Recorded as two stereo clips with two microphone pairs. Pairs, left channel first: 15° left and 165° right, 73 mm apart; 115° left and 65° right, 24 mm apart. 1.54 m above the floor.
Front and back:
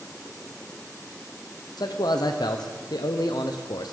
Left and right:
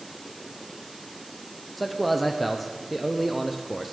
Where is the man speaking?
20° left, 0.6 m.